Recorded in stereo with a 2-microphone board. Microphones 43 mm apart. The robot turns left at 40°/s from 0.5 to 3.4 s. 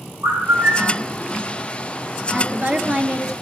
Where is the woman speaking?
110° right, 1.4 m; by 3.3 s 150° right, 1.4 m.